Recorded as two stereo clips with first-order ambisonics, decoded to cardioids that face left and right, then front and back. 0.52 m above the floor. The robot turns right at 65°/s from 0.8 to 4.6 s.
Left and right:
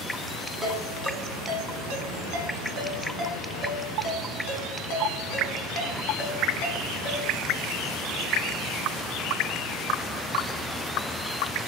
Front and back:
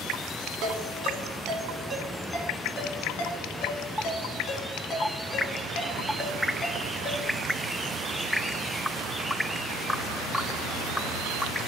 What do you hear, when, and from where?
0.6 s a ringtone: 175° right, 2.5 m; by 7.3 s 75° left, 2.5 m